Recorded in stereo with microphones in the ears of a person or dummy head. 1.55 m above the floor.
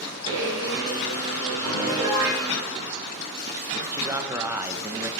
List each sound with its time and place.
0.3 s a blender: 20° right (ahead or behind), 4.5 m
1.6 s a piano: 25° right (ahead or behind), 5.5 m
3.9 s a man speaking: 10° right (ahead or behind), 1.0 m